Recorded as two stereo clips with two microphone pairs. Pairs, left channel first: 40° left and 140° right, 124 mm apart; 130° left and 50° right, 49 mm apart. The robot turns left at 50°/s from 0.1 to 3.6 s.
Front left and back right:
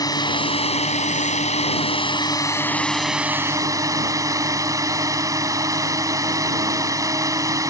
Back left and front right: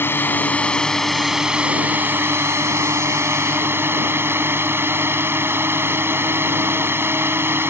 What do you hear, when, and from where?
0.0 s a drone: 95° left; by 7.7 s 80° right